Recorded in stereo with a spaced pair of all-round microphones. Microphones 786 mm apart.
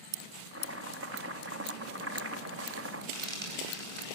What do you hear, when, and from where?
0.5 s chopping: 15° right (ahead or behind), 2.5 m
3.1 s frying: 35° right (ahead or behind), 9 m